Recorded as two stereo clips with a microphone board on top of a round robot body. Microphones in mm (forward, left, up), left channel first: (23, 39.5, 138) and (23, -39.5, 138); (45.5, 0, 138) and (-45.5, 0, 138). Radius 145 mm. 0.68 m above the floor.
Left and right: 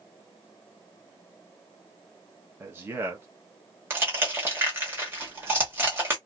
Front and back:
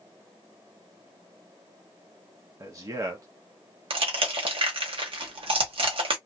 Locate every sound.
2.6 s a man speaking: 140° right, 0.9 m
3.9 s crushing: 155° right, 1.0 m